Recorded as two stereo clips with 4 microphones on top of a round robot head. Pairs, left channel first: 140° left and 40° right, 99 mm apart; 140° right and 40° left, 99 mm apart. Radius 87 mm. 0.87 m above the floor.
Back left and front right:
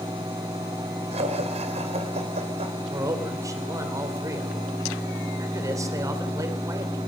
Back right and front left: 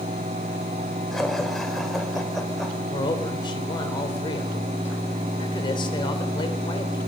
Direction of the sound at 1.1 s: 55° right.